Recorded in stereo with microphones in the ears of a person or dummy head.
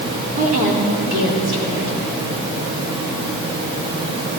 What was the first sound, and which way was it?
A woman speaking, 50° right (ahead or behind).